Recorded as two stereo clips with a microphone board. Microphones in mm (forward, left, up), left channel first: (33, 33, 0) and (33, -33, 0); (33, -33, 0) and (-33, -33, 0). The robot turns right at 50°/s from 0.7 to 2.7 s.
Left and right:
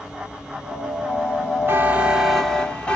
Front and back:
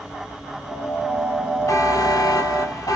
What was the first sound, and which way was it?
A buzzer, 35° right.